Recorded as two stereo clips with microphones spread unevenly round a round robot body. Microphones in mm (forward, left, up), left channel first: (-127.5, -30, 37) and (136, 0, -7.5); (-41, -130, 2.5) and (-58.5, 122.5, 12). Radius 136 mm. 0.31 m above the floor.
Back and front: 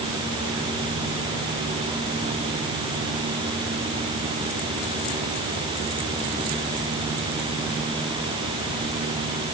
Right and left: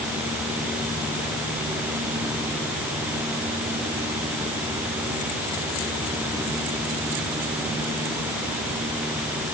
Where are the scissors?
No scissors in this recording.